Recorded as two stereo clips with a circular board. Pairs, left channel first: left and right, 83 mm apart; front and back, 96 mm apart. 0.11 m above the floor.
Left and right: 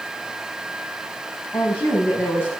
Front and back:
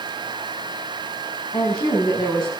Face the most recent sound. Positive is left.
turn(degrees=30)